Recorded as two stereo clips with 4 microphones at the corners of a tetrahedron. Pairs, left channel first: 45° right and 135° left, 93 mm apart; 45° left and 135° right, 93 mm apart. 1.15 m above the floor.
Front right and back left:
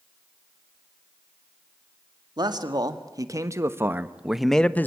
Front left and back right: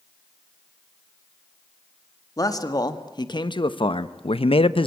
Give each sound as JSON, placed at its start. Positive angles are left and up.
{"t": 2.4, "sound": "a man speaking", "azimuth_deg": 95, "distance_m": 1.8}